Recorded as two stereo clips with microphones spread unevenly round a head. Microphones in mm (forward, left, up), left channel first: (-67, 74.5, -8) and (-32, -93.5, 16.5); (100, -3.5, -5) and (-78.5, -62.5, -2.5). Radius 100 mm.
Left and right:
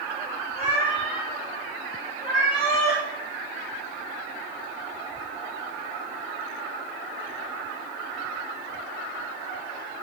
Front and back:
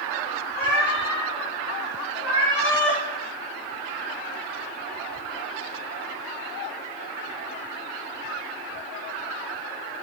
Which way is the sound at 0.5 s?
85° left.